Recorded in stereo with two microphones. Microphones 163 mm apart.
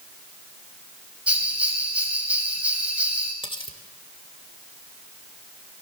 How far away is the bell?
About 6.5 m.